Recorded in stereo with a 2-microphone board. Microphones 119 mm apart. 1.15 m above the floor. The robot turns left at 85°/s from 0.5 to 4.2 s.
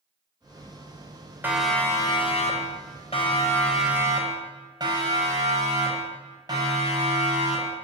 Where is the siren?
15° right (ahead or behind), 5 m; by 7.8 s 35° right (ahead or behind), 10 m.